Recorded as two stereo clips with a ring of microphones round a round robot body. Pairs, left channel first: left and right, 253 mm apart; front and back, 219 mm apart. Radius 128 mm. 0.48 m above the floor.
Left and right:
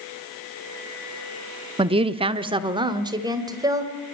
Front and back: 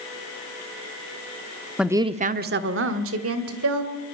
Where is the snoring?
No snoring in this recording.